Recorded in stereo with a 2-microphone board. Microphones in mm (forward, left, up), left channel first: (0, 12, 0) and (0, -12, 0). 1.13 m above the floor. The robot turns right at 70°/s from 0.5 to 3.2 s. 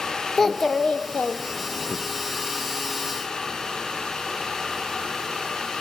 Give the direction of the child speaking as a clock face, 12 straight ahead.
11 o'clock.